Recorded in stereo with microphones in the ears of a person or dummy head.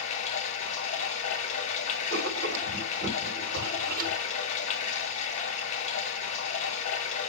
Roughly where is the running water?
Left.